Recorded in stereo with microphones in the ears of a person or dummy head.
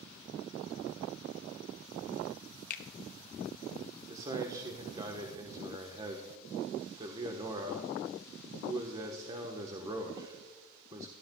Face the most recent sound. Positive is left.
turn(degrees=-25)  # may be behind; listen again after turning